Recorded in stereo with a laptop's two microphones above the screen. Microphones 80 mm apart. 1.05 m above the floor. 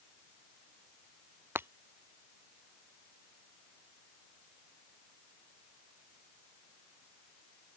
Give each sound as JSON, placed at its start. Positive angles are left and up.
{"t": 1.6, "sound": "breaking glass", "side_deg": -30}